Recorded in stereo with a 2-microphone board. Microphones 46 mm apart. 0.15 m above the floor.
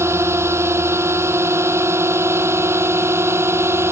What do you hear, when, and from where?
0.0 s a drone: 75° right (ahead or behind); by 3.9 s 70° right (ahead or behind)